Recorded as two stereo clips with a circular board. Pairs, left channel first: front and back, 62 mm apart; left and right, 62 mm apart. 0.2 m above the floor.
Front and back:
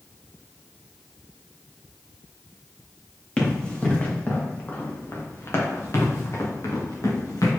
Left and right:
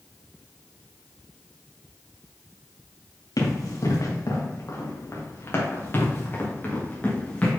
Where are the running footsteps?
75° left, 3 m; by 7.5 s 20° left, 4 m.